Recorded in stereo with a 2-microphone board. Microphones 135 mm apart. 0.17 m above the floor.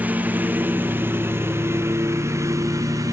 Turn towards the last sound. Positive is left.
turn(degrees=-25)  # may be behind; listen again after turning